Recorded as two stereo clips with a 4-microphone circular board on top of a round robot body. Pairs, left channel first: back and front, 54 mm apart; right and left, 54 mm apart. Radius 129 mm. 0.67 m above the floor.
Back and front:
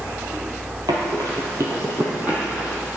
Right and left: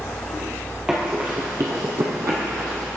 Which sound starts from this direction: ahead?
Running footsteps, at 0.9 s.